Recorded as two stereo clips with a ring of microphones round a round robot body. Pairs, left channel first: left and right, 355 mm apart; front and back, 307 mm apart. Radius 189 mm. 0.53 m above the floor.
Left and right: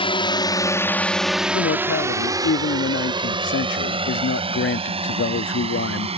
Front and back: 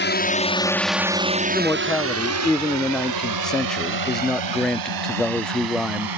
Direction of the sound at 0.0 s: 25° left.